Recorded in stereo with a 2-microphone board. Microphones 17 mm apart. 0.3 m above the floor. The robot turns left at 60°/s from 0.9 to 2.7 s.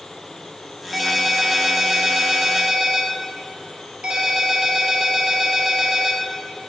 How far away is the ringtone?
About 2.5 m.